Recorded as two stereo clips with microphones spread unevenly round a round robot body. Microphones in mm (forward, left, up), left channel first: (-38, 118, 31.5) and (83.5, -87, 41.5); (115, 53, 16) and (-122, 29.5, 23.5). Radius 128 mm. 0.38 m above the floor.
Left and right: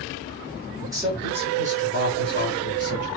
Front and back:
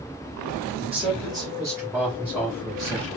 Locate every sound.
0.8 s a man speaking: 130° right, 1.5 m; by 3.1 s 80° right, 2 m